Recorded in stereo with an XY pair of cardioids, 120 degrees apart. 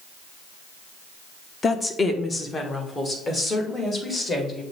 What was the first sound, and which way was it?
A woman speaking, 30° left.